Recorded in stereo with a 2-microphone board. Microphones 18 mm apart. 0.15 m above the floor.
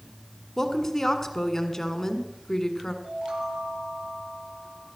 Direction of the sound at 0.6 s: 25° left (ahead or behind).